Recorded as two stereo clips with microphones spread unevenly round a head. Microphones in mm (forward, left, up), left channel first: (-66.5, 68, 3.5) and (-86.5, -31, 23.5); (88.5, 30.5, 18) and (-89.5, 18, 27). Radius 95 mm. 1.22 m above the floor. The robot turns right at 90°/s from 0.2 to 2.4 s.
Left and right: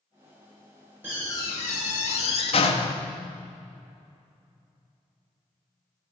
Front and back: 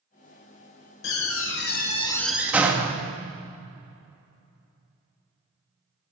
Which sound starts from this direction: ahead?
A door slam, at 1.0 s.